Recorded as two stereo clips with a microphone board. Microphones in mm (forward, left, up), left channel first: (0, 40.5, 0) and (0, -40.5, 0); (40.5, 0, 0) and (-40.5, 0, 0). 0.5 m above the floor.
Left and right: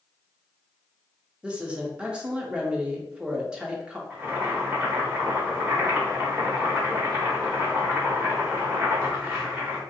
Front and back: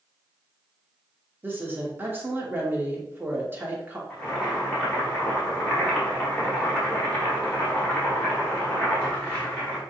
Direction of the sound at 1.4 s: 150° right.